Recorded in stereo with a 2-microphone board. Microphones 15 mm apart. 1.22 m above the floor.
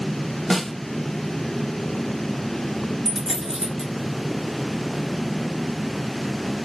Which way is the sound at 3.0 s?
60° right (ahead or behind).